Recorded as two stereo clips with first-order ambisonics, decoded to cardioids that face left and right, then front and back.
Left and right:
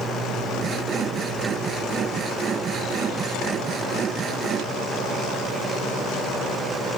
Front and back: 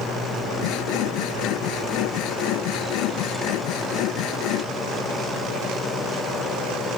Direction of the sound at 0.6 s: 30° right.